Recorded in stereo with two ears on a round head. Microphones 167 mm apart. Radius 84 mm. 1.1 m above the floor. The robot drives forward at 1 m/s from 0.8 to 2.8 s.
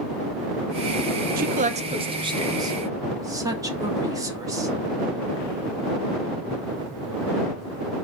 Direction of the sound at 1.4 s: 50° right (ahead or behind).